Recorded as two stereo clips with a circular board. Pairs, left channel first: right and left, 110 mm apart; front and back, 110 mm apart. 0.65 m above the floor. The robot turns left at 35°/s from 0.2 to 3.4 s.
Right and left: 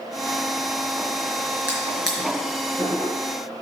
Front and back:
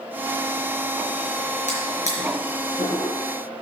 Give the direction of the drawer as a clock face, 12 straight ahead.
11 o'clock.